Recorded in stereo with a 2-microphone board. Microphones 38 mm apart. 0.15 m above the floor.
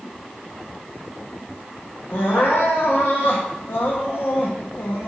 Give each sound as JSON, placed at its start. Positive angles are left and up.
{"t": 2.1, "sound": "crying", "side_deg": 75, "distance_m": 1.4}